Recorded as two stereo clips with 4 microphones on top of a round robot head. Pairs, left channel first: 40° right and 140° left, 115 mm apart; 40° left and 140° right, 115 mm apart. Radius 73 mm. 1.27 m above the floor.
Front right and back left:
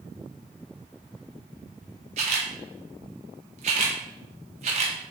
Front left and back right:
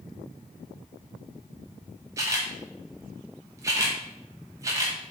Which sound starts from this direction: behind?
A camera shutter, at 2.2 s.